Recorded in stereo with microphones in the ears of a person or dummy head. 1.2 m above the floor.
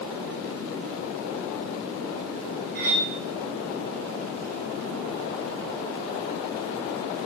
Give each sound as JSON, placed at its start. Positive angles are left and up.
{"t": 2.8, "sound": "cutlery clinking", "side_deg": -40, "distance_m": 0.6}